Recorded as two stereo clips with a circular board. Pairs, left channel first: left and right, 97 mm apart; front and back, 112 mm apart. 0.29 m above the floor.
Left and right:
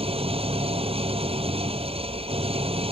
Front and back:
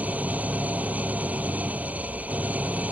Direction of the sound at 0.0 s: 105° right.